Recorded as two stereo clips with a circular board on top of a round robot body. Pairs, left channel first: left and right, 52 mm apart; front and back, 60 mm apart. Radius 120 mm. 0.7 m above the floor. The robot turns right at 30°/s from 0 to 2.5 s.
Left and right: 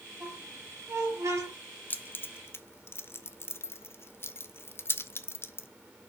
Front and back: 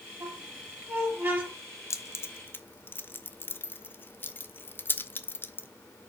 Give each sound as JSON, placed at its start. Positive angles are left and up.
{"t": 0.2, "sound": "a squeak", "azimuth_deg": -150, "distance_m": 4.5}
{"t": 1.9, "sound": "keys jangling", "azimuth_deg": 35, "distance_m": 1.0}